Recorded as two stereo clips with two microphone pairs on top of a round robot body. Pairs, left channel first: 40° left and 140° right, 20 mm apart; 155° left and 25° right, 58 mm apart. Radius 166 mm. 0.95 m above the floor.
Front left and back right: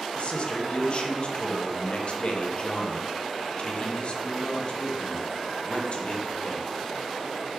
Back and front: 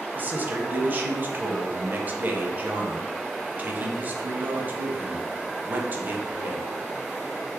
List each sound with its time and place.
0.1 s a man speaking: 25° left, 0.7 m